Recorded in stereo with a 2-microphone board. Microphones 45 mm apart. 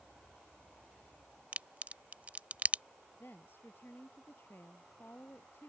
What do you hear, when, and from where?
1.5 s a crack: 35° right (ahead or behind)
3.2 s a woman speaking: 55° left (ahead or behind)